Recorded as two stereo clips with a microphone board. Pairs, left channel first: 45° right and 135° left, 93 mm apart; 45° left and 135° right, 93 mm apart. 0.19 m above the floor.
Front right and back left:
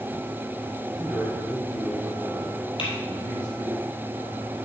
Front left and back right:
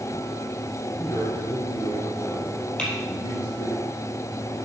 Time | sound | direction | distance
1.0 | a man speaking | 35° left | 1.7 m
2.8 | typing on a keyboard | 35° right | 3 m